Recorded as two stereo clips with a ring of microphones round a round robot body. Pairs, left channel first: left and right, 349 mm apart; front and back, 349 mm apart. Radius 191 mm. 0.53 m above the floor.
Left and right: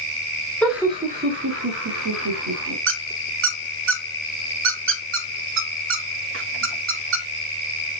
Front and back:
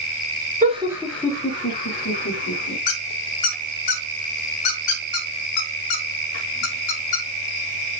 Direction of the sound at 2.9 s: 35° right.